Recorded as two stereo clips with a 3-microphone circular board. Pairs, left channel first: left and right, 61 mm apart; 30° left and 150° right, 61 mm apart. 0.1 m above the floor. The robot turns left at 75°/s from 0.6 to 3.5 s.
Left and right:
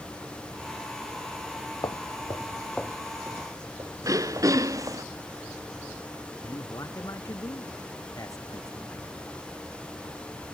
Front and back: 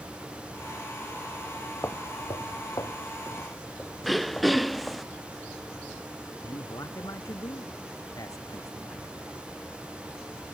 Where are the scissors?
I don't hear scissors.